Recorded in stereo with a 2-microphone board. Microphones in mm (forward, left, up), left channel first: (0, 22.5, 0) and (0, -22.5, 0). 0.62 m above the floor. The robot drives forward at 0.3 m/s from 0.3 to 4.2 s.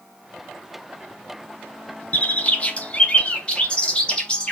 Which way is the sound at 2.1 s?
35° left (ahead or behind).